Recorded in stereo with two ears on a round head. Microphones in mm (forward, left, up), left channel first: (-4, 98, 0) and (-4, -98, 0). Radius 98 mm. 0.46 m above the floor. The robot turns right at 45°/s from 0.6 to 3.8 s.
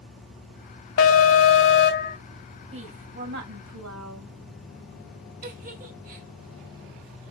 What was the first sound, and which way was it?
An alarm, 85° left.